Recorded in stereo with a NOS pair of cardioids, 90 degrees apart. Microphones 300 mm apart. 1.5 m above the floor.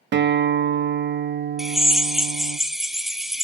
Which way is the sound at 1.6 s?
Straight ahead.